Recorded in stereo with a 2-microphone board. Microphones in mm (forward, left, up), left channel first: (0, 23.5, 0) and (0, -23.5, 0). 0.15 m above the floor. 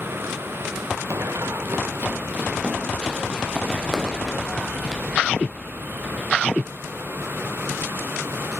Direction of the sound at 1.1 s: 80° right.